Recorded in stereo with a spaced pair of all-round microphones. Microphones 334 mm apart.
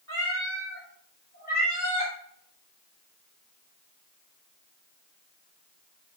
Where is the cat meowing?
45° left (ahead or behind), 2.5 m; by 2.1 s 20° left (ahead or behind), 3.5 m.